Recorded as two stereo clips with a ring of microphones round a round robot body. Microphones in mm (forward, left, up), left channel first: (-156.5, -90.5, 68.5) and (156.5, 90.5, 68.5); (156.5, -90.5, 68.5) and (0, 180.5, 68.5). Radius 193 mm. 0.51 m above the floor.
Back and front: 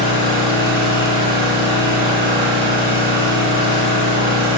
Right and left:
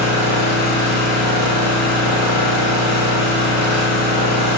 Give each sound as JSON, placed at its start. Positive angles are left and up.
{"t": 0.0, "sound": "an engine running", "azimuth_deg": -95, "distance_m": 1.5}